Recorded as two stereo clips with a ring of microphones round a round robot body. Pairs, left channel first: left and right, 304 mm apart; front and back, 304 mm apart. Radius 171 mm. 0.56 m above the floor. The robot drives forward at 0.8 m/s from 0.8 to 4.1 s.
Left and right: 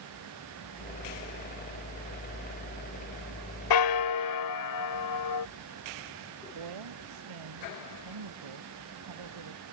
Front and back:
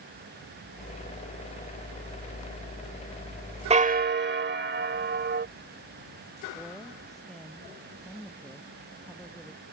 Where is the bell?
110° left; by 5.5 s 125° left.